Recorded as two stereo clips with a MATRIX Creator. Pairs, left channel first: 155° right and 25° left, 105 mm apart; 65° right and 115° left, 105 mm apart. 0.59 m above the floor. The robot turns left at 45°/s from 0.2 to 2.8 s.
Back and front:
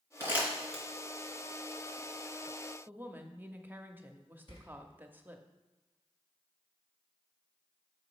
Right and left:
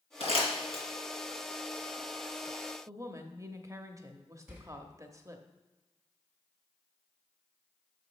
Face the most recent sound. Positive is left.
turn(degrees=-170)